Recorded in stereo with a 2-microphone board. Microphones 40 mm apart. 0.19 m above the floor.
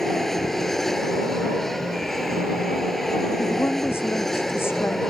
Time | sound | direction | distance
0.0 | an aircraft | 5° left (ahead or behind) | ?
3.4 | a woman speaking | 80° left | ?